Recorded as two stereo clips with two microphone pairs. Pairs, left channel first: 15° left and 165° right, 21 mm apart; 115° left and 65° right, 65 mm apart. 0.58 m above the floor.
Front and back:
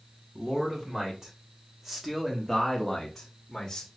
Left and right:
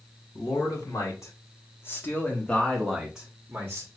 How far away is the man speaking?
About 1.9 m.